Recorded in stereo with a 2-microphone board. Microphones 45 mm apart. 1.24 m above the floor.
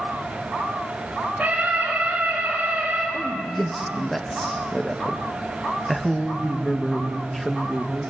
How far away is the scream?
About 7 m.